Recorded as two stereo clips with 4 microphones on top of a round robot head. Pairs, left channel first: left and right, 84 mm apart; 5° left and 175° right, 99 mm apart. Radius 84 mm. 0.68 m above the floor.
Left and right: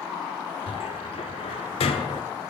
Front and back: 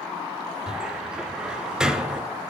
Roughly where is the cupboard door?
Left.